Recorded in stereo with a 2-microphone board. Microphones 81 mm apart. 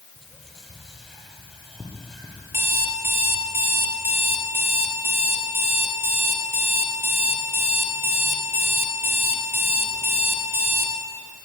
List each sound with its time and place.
0.2 s whispering: centre (ahead or behind), 6 m
2.5 s an alarm clock: 30° right (ahead or behind), 2.5 m